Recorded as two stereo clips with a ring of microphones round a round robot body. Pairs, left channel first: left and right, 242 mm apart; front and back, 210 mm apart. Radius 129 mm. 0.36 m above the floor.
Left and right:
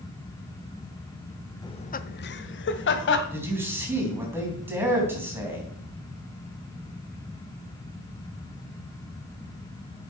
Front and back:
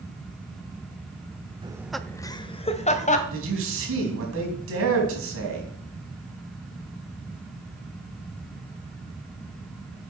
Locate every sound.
1.6 s laughter: 145° left, 0.8 m; by 3.2 s 50° left, 2 m
3.3 s a man speaking: 170° right, 4 m